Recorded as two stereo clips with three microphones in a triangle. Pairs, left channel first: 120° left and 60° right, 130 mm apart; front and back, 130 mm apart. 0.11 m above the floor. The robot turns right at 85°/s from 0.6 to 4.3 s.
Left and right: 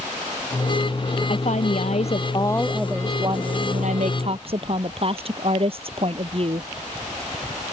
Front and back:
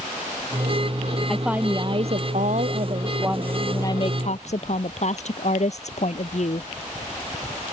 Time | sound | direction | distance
1.3 | a woman speaking | 80° left | ?